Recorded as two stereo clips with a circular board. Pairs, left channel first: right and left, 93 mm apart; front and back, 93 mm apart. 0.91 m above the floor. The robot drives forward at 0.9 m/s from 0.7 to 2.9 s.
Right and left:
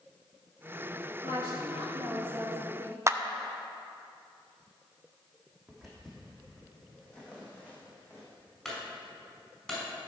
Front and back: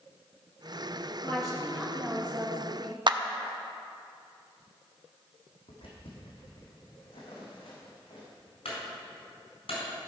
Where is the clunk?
5° right, 4.5 m.